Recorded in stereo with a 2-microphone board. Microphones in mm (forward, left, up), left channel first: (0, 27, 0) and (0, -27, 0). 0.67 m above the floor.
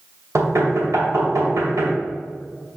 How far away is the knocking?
About 2.5 m.